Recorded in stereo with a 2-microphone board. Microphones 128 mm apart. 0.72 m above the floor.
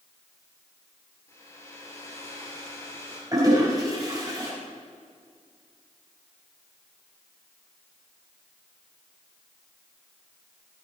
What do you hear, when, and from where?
1.3 s a hair dryer: 20° left (ahead or behind), 4 m
3.3 s a toilet flushing: 30° right (ahead or behind), 5 m